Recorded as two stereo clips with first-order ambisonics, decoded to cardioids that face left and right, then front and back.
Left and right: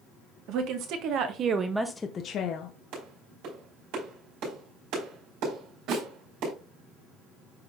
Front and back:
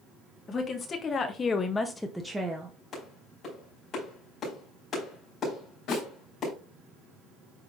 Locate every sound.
0.5 s a woman speaking: 65° right, 1.5 m; by 2.7 s 100° left, 0.9 m
2.9 s a clap: 65° right, 5 m
5.9 s a snare drum: 45° right, 3.5 m